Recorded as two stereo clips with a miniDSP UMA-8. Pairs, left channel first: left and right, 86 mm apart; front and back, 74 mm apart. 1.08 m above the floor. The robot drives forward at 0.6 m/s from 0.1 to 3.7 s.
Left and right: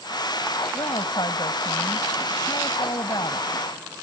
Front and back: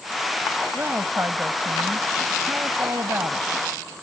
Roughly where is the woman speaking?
Behind left.